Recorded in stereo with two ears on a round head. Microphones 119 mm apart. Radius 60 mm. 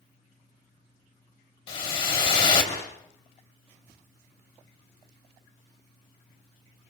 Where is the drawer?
I don't hear a drawer.